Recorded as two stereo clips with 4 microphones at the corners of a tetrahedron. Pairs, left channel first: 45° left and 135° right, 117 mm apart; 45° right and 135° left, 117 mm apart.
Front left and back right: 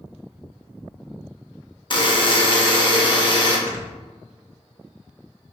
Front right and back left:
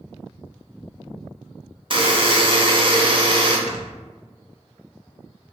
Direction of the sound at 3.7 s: 155° left.